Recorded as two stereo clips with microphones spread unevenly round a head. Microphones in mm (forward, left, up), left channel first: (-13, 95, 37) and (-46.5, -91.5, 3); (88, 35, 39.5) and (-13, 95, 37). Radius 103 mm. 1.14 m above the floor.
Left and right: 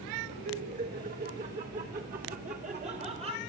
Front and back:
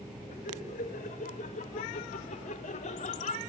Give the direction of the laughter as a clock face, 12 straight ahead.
2 o'clock.